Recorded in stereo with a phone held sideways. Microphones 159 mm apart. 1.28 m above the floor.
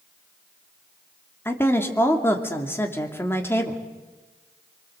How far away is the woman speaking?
About 2.5 m.